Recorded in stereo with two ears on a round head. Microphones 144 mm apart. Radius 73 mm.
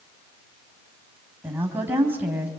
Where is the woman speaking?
10° right (ahead or behind), 4.5 m.